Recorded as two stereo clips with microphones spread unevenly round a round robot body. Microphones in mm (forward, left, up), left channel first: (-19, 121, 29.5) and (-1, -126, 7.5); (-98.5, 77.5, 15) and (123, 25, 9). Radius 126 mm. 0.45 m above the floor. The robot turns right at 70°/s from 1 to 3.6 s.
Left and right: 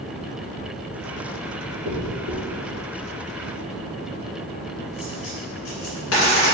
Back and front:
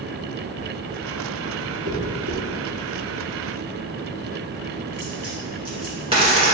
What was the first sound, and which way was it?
A dropped coin, 70° right.